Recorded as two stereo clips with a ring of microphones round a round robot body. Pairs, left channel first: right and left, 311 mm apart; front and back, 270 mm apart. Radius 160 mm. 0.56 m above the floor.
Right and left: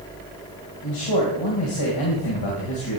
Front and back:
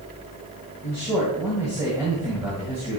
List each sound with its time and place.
0.8 s a man speaking: 100° right, 2.5 m